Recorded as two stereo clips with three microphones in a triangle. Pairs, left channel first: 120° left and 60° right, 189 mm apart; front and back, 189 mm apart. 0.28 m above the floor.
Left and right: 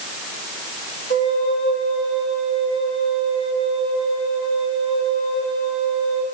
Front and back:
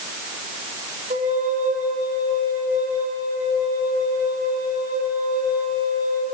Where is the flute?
130° left, 8.5 m.